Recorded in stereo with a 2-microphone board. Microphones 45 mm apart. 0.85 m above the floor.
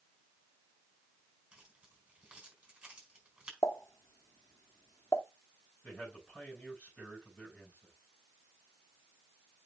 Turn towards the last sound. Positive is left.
turn(degrees=25)  # may be behind; listen again after turning